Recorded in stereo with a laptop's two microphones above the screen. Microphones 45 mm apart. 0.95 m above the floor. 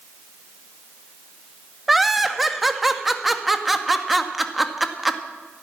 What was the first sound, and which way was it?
Laughter, 5° right (ahead or behind).